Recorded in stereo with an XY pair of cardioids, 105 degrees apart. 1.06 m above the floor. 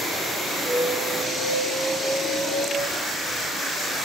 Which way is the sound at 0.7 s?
65° right.